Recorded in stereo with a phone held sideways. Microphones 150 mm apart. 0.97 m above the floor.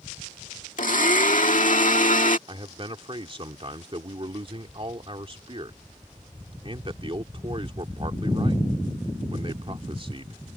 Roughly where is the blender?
Left.